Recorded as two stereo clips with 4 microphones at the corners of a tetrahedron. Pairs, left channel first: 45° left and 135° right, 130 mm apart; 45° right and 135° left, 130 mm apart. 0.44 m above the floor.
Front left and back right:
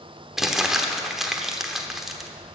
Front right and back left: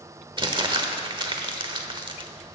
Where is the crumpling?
140° left, 1.1 m.